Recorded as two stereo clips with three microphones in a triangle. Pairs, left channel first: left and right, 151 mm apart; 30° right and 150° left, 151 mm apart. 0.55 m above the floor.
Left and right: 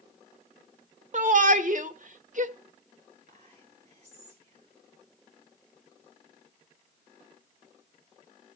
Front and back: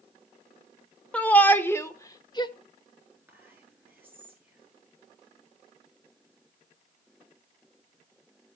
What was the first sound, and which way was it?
A shout, 110° right.